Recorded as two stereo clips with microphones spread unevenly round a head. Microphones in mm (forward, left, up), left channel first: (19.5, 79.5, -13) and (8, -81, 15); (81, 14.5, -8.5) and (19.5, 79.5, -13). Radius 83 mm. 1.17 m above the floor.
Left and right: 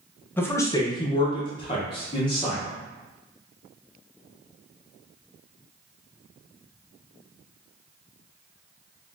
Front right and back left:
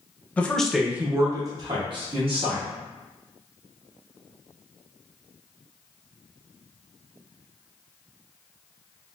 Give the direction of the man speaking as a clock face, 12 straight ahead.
11 o'clock.